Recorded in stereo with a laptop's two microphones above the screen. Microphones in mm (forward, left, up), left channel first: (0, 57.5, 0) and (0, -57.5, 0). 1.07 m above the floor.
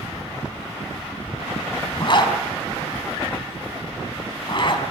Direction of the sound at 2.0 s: 45° left (ahead or behind).